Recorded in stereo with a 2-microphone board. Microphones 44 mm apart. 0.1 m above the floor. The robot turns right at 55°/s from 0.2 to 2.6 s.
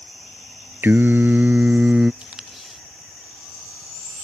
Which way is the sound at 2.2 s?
25° right (ahead or behind).